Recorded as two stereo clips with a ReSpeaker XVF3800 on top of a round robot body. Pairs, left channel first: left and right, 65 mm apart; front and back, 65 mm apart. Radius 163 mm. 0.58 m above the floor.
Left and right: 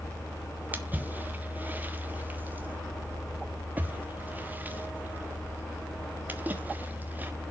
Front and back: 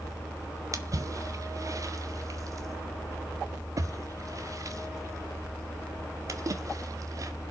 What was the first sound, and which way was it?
A splash, 150° right.